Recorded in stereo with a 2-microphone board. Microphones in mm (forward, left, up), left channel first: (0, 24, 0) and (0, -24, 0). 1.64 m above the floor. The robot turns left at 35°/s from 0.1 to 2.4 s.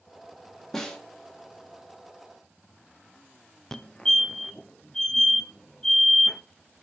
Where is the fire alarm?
10° left (ahead or behind), 0.5 m.